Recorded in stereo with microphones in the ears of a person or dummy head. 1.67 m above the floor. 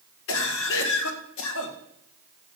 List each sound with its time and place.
0.3 s a cough: 85° left, 1.8 m